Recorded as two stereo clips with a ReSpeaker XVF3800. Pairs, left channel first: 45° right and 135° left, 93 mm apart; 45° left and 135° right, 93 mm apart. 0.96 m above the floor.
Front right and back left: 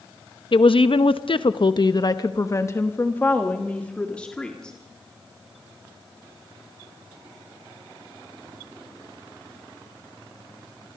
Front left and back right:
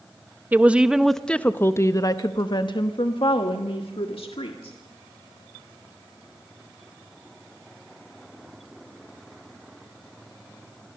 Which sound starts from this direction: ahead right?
A woman speaking, at 0.5 s.